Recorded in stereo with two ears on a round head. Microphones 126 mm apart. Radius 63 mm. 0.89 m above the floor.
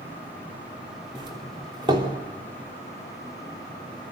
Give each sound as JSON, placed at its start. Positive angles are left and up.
{"t": 1.1, "sound": "a doorbell", "side_deg": -35, "distance_m": 3.0}